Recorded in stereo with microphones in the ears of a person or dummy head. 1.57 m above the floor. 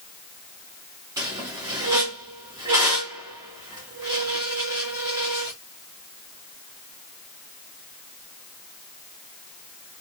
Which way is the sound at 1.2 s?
15° right (ahead or behind).